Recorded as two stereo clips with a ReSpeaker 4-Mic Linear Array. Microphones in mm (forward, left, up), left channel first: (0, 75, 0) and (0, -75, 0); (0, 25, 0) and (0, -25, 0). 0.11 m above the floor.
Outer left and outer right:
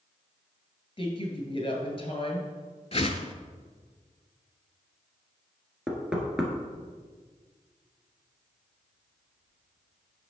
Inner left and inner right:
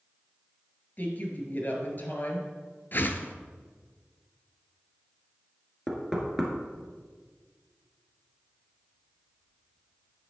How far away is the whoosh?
About 0.6 m.